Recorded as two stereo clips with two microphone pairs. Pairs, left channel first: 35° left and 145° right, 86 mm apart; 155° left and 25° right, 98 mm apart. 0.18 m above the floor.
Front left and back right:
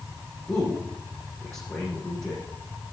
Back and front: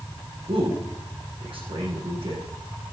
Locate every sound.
0.5 s a man speaking: 30° right, 5.5 m